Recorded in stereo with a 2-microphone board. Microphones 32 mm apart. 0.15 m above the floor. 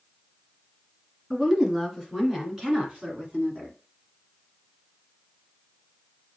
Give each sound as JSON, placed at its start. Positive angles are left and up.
{"t": 1.3, "sound": "a woman speaking", "side_deg": -10, "distance_m": 2.5}